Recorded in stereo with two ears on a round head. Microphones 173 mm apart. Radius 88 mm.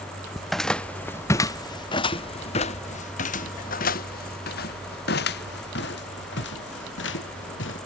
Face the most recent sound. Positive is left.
turn(degrees=65)  # may be behind; listen again after turning